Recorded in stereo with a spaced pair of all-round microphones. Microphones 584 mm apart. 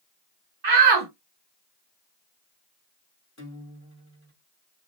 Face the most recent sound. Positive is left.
turn(degrees=25)  # may be behind; listen again after turning